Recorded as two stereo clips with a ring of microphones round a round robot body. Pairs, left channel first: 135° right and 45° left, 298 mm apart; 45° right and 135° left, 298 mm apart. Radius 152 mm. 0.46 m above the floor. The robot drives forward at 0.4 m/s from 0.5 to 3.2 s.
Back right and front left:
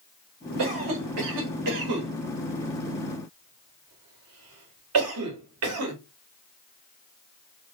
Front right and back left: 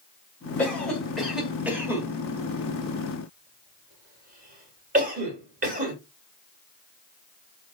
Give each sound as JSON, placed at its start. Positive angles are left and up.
{"t": 0.6, "sound": "a cough", "azimuth_deg": 40, "distance_m": 1.9}